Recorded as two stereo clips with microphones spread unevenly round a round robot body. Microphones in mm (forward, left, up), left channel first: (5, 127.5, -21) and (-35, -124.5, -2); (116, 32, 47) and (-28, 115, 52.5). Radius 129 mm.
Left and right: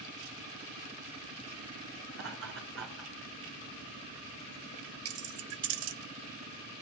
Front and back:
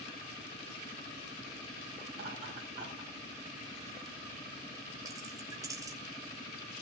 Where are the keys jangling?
135° right, 1.2 m.